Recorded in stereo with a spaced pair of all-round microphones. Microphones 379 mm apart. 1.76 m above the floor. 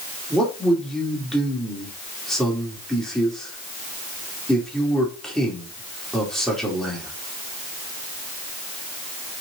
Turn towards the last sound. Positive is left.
turn(degrees=0)  # may be behind; listen again after turning